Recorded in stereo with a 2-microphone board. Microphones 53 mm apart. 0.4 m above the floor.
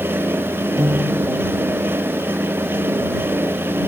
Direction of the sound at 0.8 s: 75° right (ahead or behind).